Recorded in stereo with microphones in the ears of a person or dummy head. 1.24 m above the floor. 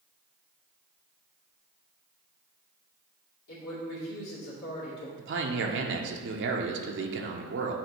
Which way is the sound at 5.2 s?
60° right (ahead or behind).